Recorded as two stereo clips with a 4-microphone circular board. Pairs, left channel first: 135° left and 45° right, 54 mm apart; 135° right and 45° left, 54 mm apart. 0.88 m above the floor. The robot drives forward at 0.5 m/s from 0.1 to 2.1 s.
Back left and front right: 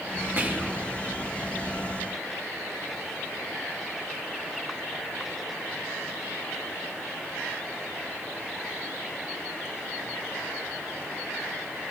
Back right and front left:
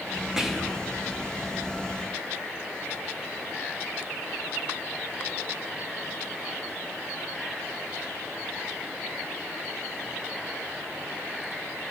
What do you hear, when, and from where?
0.4 s whispering: 25° right, 0.6 m; by 0.8 s 60° right, 0.6 m